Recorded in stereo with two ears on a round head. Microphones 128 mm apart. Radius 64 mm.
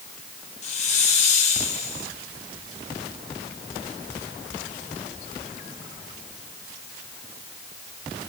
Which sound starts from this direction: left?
A hiss, at 0.6 s.